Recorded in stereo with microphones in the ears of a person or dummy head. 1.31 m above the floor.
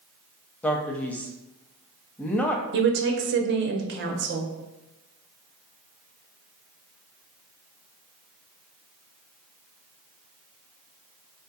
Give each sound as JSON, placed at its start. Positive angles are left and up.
{"t": 0.6, "sound": "a man speaking", "side_deg": 10, "distance_m": 0.5}
{"t": 2.7, "sound": "a woman speaking", "side_deg": -50, "distance_m": 0.6}